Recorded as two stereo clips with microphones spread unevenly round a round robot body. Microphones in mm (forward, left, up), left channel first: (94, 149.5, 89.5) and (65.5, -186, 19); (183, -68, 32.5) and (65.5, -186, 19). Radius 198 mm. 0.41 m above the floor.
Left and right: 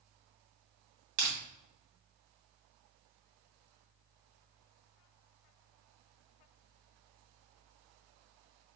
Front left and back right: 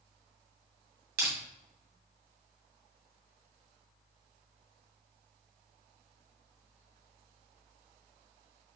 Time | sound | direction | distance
1.2 | crushing | 155° right | 2.0 m